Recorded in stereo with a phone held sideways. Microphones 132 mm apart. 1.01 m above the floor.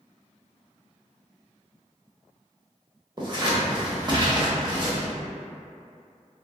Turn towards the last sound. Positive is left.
turn(degrees=-35)  # may be behind; listen again after turning